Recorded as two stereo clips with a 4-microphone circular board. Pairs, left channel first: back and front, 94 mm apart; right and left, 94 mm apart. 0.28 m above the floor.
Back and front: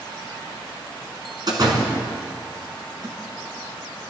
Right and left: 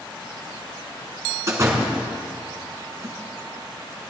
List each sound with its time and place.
1.5 s a door slam: 35° left, 2 m